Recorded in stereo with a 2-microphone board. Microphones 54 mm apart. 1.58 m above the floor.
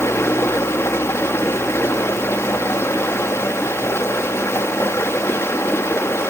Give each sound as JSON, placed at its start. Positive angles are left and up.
{"t": 0.0, "sound": "running water", "side_deg": 55, "distance_m": 1.7}